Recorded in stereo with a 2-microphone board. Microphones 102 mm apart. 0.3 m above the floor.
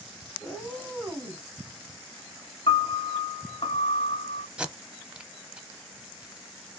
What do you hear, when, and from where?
0.4 s a cat meowing: 15° left (ahead or behind), 1.6 m; by 1.4 s 45° right (ahead or behind), 1.1 m
2.7 s a piano: 65° left (ahead or behind), 0.6 m
4.6 s tape being pulled: 10° right (ahead or behind), 0.6 m